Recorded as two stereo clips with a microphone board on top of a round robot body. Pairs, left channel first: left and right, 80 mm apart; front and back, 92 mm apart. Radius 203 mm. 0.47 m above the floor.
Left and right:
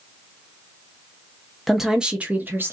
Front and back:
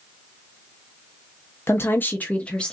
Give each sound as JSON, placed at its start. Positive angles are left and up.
{"t": 1.7, "sound": "a woman speaking", "azimuth_deg": 0, "distance_m": 1.1}